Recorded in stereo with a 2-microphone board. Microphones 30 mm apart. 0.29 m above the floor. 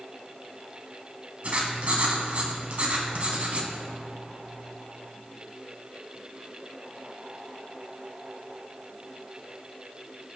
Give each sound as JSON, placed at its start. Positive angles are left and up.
{"t": 1.4, "sound": "writing", "side_deg": -50, "distance_m": 1.7}